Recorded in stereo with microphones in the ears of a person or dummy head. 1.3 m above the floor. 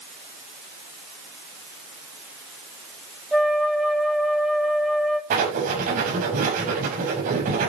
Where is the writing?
40° right (ahead or behind), 5.5 m.